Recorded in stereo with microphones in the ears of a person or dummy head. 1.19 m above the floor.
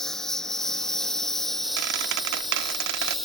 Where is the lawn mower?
5° left (ahead or behind); by 3.3 s centre (ahead or behind).